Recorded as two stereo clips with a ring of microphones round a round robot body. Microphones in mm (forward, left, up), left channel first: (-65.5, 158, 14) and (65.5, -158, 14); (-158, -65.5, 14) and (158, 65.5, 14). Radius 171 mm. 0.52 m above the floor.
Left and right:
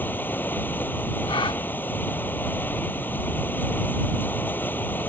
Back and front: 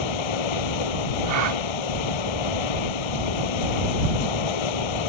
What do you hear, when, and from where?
0.0 s running water: 165° right
1.3 s a gasp: 40° left